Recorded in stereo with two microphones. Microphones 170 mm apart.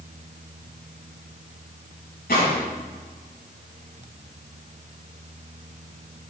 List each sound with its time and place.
2.3 s a gunshot: 75° left (ahead or behind), 5 m